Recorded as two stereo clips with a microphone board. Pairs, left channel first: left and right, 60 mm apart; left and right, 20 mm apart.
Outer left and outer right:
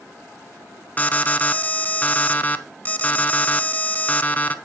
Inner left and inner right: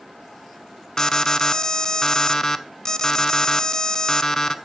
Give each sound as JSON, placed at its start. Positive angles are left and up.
{"t": 1.0, "sound": "an alarm", "side_deg": 25, "distance_m": 1.0}